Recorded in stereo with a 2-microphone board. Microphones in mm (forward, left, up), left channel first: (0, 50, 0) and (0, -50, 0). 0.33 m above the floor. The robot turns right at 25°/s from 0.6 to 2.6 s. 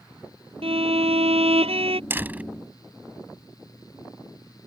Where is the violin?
105° right; by 2.0 s 75° right.